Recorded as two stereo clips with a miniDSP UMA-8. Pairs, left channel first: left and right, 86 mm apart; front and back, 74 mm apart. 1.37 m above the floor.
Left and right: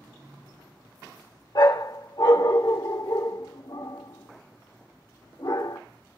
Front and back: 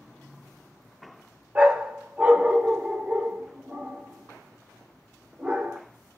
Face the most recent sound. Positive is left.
turn(degrees=110)